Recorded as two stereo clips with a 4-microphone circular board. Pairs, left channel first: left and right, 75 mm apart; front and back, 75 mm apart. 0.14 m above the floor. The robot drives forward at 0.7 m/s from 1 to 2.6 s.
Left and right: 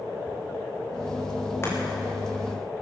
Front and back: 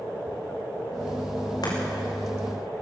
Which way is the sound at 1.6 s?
30° left.